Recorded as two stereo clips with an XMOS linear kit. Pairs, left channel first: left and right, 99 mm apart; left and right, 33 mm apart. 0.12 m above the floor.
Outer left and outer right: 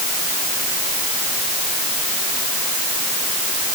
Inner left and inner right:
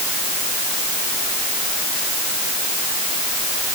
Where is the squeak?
No squeak in this recording.